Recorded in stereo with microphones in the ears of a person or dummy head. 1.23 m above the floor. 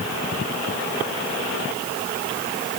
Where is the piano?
No piano in this recording.